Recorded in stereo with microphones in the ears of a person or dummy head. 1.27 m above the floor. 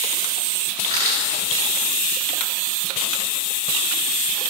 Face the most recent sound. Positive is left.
turn(degrees=-30)  # may be behind; listen again after turning